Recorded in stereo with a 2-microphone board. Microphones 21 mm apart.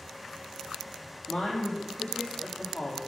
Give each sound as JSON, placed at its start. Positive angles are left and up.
{"t": 1.3, "sound": "a woman speaking", "side_deg": 80, "distance_m": 5.0}